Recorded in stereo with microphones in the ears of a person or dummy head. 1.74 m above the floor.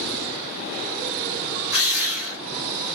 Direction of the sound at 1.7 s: 5° right (ahead or behind).